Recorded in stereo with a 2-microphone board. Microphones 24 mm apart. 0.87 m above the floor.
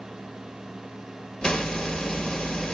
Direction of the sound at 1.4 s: 35° left (ahead or behind).